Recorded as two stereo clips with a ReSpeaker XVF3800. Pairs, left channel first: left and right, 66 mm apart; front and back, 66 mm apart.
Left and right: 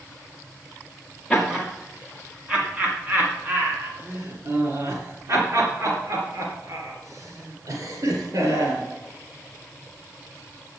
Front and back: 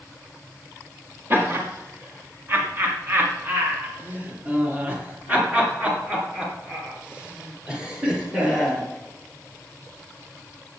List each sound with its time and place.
1.3 s laughter: 175° right, 1.9 m; by 8.8 s 100° right, 4 m